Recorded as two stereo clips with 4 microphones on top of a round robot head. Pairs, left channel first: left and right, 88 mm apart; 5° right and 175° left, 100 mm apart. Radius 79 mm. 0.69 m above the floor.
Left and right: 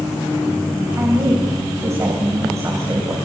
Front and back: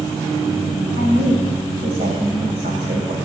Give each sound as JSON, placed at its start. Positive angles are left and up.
{"t": 1.0, "sound": "a woman speaking", "azimuth_deg": -145, "distance_m": 3.5}